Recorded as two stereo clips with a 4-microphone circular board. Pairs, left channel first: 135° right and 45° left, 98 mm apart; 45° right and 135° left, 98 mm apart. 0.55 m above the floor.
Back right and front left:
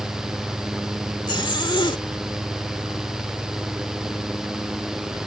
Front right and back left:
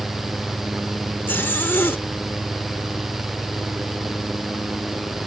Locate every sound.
1.3 s a zipper: 110° right